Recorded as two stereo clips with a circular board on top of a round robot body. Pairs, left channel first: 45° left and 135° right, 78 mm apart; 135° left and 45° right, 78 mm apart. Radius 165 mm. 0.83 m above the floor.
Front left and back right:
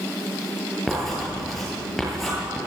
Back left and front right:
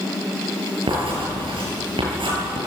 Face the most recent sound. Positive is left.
turn(degrees=-45)